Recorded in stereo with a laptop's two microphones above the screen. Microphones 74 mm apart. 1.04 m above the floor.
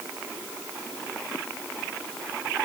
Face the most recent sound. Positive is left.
No sound to turn to.